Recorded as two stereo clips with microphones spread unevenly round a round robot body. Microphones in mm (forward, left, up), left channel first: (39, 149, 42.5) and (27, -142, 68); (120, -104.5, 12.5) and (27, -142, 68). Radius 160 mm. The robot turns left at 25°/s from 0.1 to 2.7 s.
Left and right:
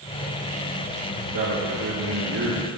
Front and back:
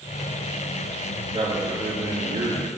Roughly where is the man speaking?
Behind right.